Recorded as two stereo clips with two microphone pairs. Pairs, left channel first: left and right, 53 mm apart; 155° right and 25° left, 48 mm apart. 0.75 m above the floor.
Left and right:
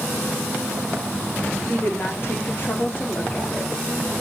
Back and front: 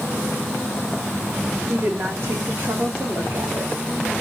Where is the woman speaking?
60° left, 1.7 m; by 3.7 s 35° left, 2.5 m.